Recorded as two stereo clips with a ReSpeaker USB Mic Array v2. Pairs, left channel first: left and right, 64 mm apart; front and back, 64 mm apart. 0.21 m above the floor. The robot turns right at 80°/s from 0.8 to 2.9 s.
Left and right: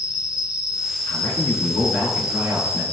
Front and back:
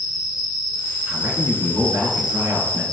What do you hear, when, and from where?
0.0 s an insect: 15° right, 1.7 m; by 2.9 s 155° left, 1.7 m
1.1 s a man speaking: 105° left, 3 m; by 2.8 s 110° right, 3 m